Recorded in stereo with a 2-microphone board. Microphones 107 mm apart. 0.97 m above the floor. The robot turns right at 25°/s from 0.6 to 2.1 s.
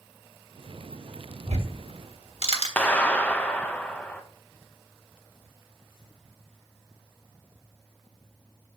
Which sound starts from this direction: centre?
A clap, at 2.8 s.